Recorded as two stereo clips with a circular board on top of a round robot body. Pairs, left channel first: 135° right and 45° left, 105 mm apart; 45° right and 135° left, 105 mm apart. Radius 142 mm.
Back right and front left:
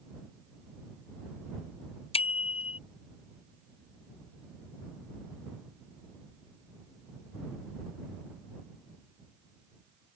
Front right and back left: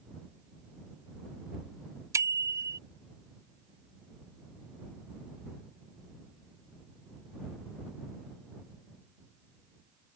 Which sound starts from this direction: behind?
A bicycle bell, at 2.1 s.